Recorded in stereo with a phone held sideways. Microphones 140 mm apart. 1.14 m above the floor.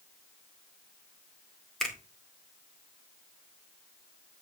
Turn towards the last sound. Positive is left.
turn(degrees=5)  # may be behind; listen again after turning